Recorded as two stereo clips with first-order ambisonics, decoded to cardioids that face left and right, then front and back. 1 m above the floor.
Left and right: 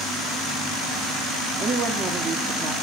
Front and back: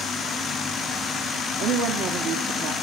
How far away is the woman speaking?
About 2 m.